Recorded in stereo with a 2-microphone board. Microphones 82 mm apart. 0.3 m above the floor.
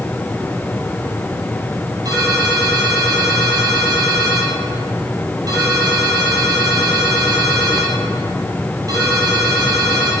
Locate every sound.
2.0 s a ringtone: 40° right (ahead or behind), 4 m